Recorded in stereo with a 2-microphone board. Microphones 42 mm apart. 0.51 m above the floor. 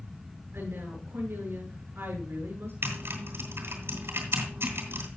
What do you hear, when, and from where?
0.5 s a woman speaking: 65° right (ahead or behind), 8 m
2.8 s typing on a keyboard: 75° right (ahead or behind), 2.5 m